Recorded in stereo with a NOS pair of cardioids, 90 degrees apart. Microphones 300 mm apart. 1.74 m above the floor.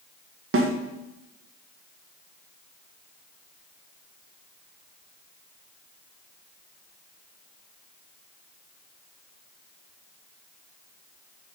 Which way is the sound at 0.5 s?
45° right.